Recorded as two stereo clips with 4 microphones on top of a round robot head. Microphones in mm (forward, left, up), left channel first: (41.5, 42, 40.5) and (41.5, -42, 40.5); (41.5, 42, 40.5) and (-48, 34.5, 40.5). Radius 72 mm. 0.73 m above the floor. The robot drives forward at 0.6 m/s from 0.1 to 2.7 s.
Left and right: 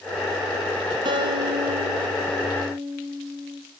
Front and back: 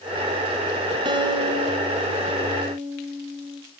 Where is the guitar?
130° right, 3 m; by 3.6 s 140° right, 3.5 m.